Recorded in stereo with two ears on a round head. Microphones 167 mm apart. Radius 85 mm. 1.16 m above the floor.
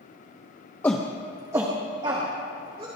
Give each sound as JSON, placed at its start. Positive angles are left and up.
{"t": 0.8, "sound": "a shout", "side_deg": 10, "distance_m": 0.7}